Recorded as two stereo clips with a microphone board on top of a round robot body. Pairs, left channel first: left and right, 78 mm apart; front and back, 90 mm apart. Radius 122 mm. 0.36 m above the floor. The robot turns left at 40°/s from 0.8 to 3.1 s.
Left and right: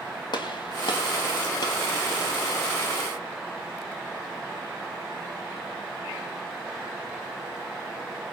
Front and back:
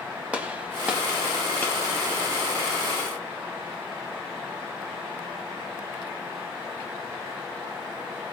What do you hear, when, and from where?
0.3 s a gunshot: 105° left, 3 m; by 1.7 s 70° left, 3 m